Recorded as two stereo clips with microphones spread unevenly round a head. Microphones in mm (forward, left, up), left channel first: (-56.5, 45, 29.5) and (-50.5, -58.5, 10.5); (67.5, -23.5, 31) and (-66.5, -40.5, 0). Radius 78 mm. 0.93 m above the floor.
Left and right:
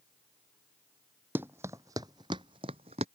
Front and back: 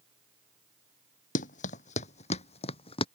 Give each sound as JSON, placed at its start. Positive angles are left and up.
{"t": 1.4, "sound": "running footsteps", "azimuth_deg": -5}